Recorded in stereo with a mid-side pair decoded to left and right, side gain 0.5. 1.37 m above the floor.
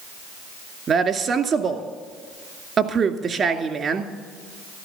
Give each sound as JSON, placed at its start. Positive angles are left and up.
{"t": 0.9, "sound": "a woman speaking", "azimuth_deg": -50, "distance_m": 2.0}